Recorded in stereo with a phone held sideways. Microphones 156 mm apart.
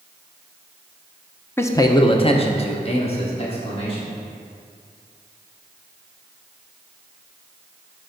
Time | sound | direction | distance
1.6 | a man speaking | 15° left (ahead or behind) | 0.6 m